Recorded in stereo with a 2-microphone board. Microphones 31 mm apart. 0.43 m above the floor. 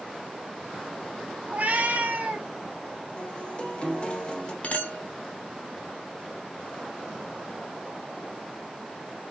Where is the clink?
50° left (ahead or behind), 1.2 m.